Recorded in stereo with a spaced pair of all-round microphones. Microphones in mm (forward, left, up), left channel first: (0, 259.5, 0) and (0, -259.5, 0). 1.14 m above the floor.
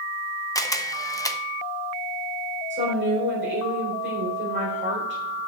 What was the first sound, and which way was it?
A camera shutter, 5° left (ahead or behind).